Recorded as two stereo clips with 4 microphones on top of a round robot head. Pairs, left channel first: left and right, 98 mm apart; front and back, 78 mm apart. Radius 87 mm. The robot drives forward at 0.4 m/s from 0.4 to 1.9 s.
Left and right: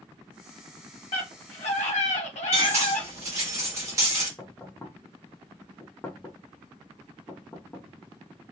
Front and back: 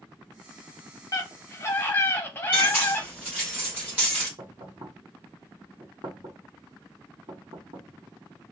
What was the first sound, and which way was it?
A scream, 45° left.